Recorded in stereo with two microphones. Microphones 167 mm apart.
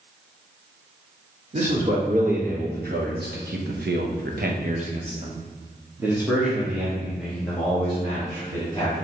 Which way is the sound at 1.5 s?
50° right (ahead or behind).